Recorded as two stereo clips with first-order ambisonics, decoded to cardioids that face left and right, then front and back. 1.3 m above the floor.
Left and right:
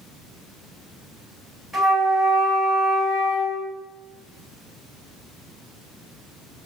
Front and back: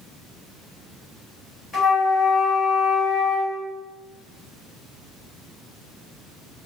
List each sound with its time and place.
1.7 s a flute: 10° left, 1.1 m